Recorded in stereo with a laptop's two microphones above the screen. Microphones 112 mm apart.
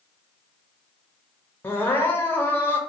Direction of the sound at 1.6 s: 20° left (ahead or behind).